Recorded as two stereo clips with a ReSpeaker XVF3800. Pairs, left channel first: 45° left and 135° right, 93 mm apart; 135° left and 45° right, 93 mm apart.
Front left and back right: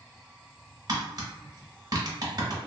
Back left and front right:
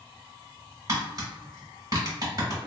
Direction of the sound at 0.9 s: 90° right.